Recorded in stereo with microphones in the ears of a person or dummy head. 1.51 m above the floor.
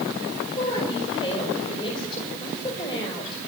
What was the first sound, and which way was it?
A woman speaking, 25° left (ahead or behind).